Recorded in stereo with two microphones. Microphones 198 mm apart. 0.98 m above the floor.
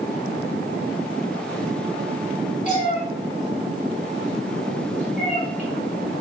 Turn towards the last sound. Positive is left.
turn(degrees=40)  # may be behind; listen again after turning